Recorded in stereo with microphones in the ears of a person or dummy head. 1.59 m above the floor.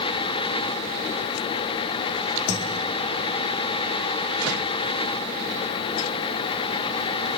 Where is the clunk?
I don't hear a clunk.